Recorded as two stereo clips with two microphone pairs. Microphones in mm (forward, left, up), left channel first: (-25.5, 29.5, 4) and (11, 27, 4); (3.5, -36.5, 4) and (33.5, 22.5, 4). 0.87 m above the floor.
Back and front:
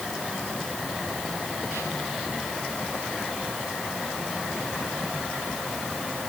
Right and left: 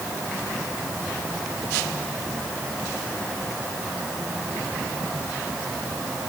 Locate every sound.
Only background noise.